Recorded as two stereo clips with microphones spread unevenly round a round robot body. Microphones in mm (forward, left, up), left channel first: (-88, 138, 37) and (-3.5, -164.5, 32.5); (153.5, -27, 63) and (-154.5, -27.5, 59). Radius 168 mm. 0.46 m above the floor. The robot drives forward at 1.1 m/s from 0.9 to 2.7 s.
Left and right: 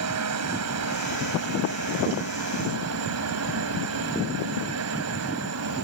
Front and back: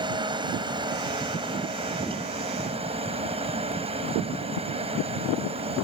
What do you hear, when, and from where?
0.0 s a helicopter: 105° right; by 5.8 s 110° right